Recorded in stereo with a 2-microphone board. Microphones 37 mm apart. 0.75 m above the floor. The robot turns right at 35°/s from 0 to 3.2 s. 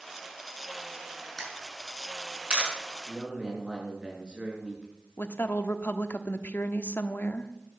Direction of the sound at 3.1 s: 20° right (ahead or behind).